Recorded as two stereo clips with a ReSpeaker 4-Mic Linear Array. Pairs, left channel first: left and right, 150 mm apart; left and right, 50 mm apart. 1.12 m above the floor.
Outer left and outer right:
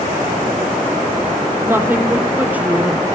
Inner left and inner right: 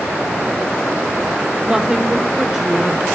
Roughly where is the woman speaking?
Centre.